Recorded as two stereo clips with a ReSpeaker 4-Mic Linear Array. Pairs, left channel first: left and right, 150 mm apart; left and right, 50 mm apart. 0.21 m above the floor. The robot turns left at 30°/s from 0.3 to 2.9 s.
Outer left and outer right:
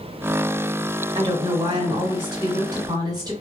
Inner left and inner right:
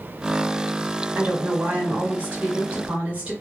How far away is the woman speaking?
About 1.2 m.